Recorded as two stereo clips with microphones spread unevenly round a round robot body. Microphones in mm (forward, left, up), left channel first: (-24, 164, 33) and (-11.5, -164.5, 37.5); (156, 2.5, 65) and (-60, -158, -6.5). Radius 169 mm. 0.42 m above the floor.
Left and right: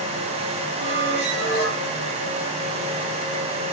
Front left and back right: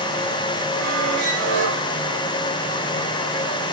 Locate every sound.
0.8 s a squeak: 145° right, 9.5 m